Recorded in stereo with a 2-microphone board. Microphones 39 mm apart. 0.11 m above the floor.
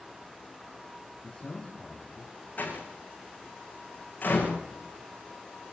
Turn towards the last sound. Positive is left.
turn(degrees=50)  # may be behind; listen again after turning